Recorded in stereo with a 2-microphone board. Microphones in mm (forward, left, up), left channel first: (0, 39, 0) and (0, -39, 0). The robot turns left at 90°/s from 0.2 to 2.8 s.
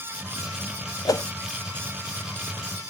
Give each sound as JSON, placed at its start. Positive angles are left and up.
{"t": 1.1, "sound": "a whoosh", "side_deg": 55}